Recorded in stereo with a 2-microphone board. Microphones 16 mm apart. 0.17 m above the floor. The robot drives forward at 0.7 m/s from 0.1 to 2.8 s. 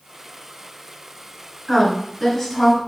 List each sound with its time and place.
1.7 s a woman speaking: centre (ahead or behind), 1.7 m